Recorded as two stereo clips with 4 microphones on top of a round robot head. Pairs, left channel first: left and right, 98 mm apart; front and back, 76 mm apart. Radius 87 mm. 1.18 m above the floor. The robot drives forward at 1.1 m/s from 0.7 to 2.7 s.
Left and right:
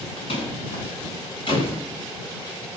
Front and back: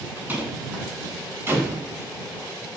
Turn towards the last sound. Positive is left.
turn(degrees=125)